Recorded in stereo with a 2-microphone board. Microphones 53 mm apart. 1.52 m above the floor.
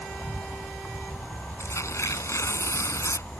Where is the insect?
30° left (ahead or behind).